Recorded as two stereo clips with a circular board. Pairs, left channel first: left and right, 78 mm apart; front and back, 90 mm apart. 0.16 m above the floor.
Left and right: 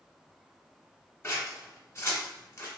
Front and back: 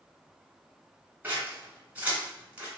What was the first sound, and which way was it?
Scissors, 120° left.